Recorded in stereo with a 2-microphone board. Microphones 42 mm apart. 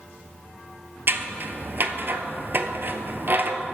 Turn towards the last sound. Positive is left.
turn(degrees=-50)  # may be behind; listen again after turning